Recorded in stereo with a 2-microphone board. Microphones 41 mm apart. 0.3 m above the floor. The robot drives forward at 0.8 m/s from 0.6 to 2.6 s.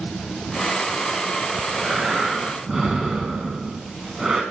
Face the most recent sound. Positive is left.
turn(degrees=-10)  # may be behind; listen again after turning